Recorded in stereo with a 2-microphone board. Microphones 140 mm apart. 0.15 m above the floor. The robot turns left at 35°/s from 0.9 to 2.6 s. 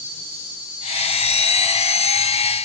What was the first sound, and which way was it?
An insect, 45° right.